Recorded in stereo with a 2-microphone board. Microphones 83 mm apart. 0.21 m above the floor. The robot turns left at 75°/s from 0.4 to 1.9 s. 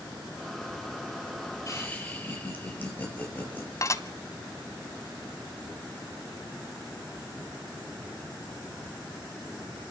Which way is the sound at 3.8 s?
40° left (ahead or behind).